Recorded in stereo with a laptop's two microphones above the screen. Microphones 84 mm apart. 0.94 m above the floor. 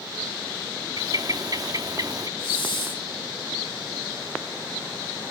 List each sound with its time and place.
1.0 s a bird: 45° right (ahead or behind), 1.0 m
2.4 s a hiss: 80° left, 3 m